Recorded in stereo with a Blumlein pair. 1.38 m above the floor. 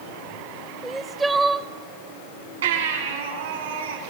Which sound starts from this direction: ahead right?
A baby crying, at 2.6 s.